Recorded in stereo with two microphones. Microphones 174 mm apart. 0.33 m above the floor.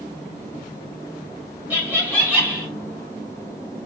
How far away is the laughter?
About 1.4 m.